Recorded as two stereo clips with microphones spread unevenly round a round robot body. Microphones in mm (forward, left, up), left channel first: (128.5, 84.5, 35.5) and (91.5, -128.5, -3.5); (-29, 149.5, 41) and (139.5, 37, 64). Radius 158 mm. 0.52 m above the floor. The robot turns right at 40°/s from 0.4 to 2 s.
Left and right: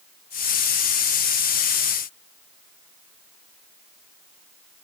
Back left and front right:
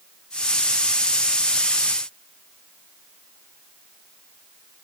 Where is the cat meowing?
I don't hear a cat meowing.